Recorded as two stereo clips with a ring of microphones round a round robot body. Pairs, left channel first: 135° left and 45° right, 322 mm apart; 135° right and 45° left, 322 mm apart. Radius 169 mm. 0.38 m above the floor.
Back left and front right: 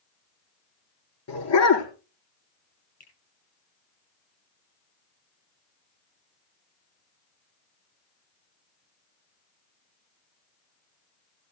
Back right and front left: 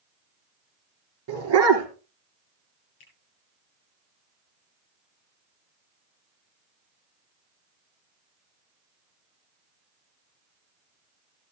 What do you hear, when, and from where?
1.3 s a dog barking: 90° left, 3.5 m
3.0 s a finger snap: 155° right, 7.5 m